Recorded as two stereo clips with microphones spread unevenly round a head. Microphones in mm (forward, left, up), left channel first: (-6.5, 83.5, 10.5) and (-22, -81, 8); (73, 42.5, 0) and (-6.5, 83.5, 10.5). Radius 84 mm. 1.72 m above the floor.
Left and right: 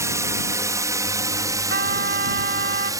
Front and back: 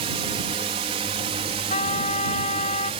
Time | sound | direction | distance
0.0 | a drone | 170° right | ?
1.7 | a trumpet | 55° right | ?